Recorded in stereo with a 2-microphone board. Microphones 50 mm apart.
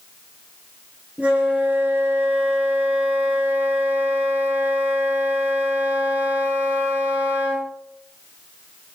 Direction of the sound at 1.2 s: 30° right (ahead or behind).